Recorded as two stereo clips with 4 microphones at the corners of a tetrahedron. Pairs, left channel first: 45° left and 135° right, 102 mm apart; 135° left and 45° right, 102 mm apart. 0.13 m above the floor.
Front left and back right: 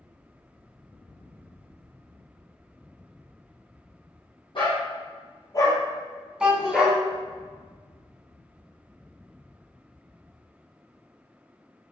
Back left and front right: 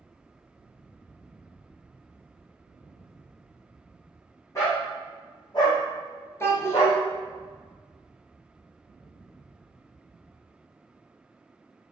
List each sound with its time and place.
4.5 s a dog barking: 75° left, 1.9 m; by 7.0 s 150° left, 0.9 m
6.4 s a child speaking: 150° left, 0.7 m